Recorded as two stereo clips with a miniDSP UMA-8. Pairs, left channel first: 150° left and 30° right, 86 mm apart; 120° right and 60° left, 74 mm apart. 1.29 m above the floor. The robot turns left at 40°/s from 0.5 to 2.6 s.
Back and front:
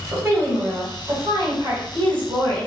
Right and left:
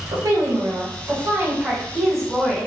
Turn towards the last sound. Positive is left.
turn(degrees=-55)